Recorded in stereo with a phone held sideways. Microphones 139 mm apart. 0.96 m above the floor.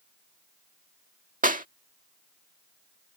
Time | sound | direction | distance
1.4 | a clap | 70° right (ahead or behind) | ?